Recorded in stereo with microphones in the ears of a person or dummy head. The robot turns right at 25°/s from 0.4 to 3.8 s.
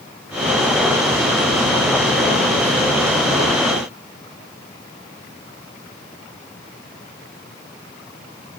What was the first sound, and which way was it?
Only background noise.